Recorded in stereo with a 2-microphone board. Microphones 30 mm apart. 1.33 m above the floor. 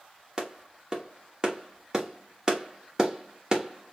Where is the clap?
25° right (ahead or behind), 1.6 m.